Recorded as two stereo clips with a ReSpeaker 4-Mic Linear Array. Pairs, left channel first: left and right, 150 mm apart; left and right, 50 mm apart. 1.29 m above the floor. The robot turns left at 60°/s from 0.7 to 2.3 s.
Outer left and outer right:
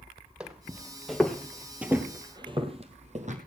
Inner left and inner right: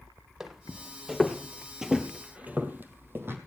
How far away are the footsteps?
About 1.9 m.